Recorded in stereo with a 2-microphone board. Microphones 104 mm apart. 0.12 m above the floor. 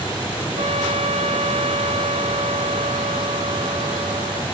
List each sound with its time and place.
0.6 s a trumpet: 75° right (ahead or behind)